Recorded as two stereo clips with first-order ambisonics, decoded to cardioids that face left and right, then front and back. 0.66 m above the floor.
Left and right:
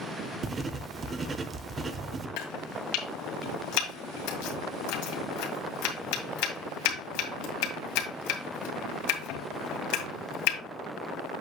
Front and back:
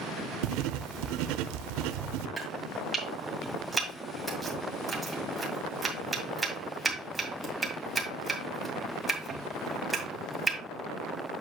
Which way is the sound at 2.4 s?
100° left.